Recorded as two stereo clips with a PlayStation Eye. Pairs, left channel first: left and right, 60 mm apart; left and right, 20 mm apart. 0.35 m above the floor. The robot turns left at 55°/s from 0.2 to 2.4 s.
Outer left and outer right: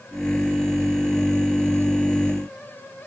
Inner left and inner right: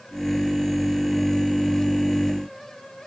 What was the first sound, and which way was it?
Only background noise.